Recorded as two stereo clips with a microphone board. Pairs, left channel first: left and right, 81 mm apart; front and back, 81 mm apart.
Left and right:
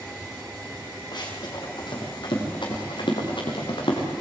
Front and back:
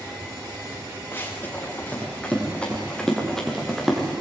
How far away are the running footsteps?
About 7 m.